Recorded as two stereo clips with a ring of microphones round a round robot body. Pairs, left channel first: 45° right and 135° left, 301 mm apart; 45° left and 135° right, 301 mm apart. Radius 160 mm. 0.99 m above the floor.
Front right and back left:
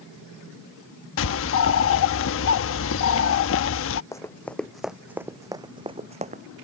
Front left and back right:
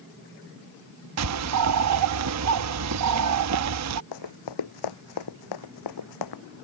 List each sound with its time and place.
1.2 s a bird: 95° right
4.1 s running footsteps: 35° left; by 6.4 s 70° left